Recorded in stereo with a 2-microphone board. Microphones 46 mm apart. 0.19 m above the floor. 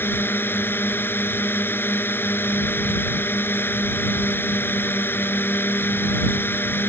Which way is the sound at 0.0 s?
55° left (ahead or behind).